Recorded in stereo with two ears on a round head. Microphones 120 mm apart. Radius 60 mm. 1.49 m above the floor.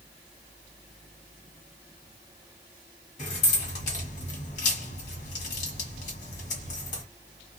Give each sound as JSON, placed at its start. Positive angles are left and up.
{"t": 3.2, "sound": "keys jangling", "side_deg": 60, "distance_m": 1.6}